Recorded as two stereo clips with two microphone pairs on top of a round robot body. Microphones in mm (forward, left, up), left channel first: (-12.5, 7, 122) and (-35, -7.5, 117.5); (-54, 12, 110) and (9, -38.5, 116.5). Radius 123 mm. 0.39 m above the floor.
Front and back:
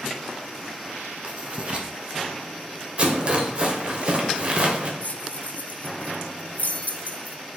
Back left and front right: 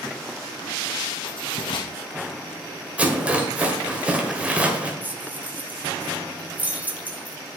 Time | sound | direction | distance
1.2 | writing | 155° left | 1.5 m
3.0 | a rattle | 115° right | 1.9 m
5.0 | keys jangling | 30° left | 1.1 m